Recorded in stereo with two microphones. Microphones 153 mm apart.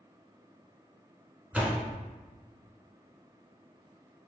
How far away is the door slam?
About 1.0 m.